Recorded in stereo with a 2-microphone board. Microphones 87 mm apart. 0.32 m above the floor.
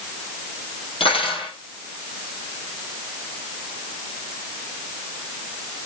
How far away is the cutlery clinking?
About 6 m.